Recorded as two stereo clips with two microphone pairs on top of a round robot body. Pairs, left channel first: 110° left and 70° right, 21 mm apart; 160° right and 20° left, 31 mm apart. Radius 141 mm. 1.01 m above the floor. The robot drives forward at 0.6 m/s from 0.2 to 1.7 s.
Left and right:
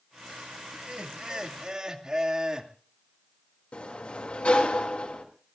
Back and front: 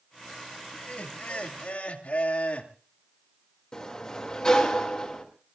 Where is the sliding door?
140° left, 2.5 m.